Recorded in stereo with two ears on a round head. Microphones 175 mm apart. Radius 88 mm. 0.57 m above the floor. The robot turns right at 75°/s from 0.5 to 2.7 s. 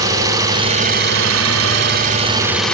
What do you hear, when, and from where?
0.0 s an engine running: 160° right, 1.7 m; by 2.8 s 5° left, 1.7 m